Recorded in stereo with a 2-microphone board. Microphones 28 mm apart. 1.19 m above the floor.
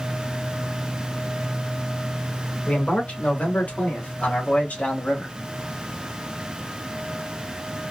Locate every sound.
2.7 s a man speaking: 85° left, 2.5 m; by 5.3 s 60° left (ahead or behind), 1.6 m